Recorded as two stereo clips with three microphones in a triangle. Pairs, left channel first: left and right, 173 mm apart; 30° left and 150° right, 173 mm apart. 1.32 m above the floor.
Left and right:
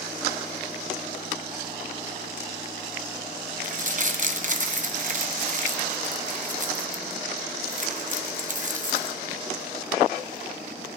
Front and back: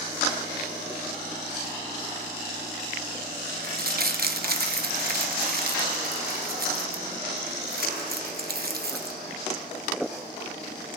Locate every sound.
3.6 s crumpling: 130° right, 0.8 m